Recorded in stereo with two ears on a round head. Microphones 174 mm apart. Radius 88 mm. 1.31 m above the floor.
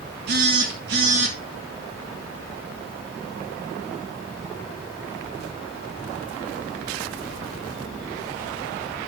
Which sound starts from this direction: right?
A phone buzzing, at 0.3 s.